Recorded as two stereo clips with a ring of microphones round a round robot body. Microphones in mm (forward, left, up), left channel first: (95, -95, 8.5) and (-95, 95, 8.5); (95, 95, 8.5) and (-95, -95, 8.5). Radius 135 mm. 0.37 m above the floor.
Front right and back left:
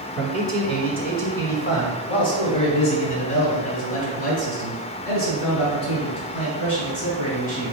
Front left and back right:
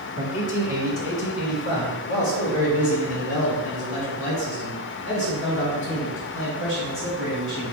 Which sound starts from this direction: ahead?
A man speaking, at 0.2 s.